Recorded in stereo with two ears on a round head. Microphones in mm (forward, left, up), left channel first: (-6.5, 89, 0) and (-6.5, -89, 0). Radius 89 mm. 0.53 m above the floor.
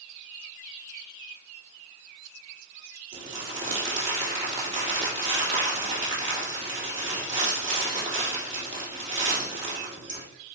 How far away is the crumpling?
About 3 m.